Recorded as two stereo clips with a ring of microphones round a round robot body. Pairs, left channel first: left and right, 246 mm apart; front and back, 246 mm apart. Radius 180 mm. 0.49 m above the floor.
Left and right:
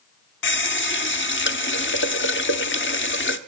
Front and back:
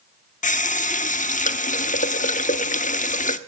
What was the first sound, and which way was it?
A running tap, 55° left.